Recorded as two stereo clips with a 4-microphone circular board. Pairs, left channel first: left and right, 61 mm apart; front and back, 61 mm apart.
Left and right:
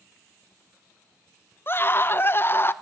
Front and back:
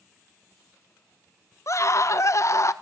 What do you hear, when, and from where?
1.7 s a scream: 35° left, 1.0 m